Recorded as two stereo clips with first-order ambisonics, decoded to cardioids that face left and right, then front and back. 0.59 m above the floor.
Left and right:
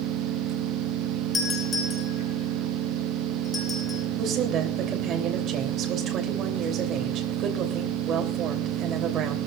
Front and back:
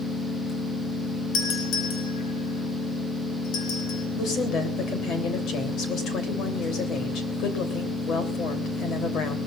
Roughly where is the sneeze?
I don't hear a sneeze.